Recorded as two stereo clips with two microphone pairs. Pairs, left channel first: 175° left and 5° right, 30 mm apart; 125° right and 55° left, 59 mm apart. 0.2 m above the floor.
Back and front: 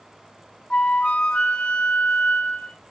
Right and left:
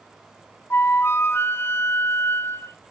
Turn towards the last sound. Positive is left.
turn(degrees=-150)